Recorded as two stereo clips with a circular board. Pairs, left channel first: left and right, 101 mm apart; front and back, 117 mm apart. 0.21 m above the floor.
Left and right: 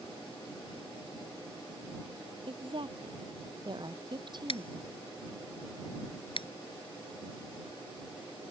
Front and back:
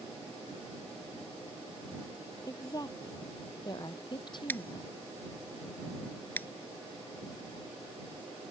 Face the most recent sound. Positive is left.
turn(degrees=70)